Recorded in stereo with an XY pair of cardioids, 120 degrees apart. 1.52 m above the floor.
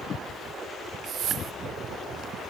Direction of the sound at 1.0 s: 60° right.